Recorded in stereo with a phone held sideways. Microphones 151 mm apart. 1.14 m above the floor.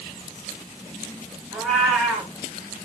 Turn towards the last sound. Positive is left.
turn(degrees=0)  # may be behind; listen again after turning